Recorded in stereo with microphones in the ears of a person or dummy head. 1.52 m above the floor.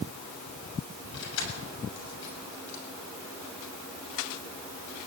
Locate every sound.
1.1 s keys jangling: 70° left (ahead or behind), 7 m